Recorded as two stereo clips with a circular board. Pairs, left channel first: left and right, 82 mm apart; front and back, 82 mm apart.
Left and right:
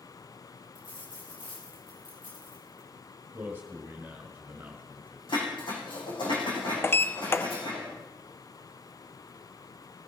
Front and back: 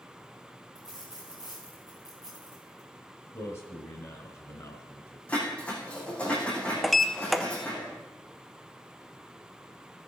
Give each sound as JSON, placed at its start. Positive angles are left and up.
{"t": 0.8, "sound": "a dropped coin", "azimuth_deg": 95, "distance_m": 4.5}
{"t": 3.3, "sound": "a man speaking", "azimuth_deg": -35, "distance_m": 1.7}
{"t": 5.3, "sound": "dishes clattering", "azimuth_deg": 75, "distance_m": 5.5}
{"t": 6.8, "sound": "a sliding door", "azimuth_deg": 85, "distance_m": 0.6}